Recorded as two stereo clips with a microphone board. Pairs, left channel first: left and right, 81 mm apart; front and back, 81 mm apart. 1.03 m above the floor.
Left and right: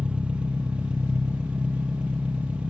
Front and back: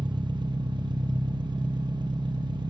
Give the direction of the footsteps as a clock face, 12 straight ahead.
I don't hear footsteps.